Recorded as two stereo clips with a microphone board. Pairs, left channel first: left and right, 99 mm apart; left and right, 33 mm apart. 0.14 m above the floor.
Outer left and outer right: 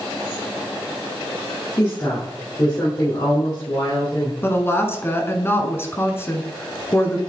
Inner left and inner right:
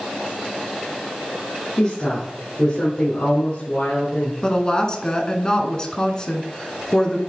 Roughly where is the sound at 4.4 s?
Left.